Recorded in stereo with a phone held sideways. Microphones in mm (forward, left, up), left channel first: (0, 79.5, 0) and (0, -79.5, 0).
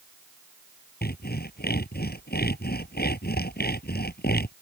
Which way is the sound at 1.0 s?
90° left.